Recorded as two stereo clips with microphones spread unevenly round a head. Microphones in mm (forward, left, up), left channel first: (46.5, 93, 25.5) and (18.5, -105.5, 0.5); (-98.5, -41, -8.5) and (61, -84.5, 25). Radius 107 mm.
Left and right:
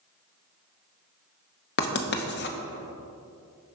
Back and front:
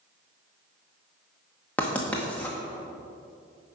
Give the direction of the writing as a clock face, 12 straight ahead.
10 o'clock.